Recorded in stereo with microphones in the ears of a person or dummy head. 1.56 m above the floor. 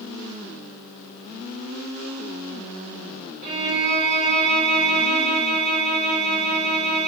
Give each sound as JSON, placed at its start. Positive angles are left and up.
{"t": 3.4, "sound": "a violin", "side_deg": -40, "distance_m": 1.2}